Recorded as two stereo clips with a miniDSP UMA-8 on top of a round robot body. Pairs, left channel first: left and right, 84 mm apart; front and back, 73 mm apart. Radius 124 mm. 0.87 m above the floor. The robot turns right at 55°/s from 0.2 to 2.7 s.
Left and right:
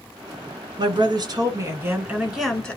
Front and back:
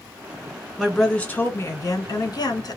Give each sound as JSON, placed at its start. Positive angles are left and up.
{"t": 0.8, "sound": "a woman speaking", "azimuth_deg": -95, "distance_m": 1.4}